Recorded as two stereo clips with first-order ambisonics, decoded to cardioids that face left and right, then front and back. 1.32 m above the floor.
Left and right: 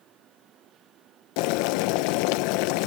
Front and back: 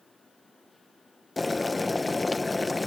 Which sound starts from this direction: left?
Boiling, at 1.4 s.